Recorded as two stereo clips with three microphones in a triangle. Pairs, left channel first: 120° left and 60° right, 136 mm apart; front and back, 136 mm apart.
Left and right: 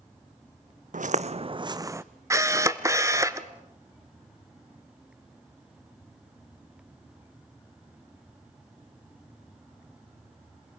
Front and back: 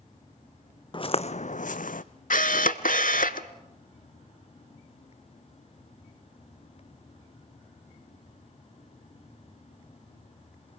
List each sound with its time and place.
0.9 s footsteps: 50° right, 0.7 m; by 2.0 s 10° left, 0.8 m
2.3 s a camera shutter: 5° left, 0.7 m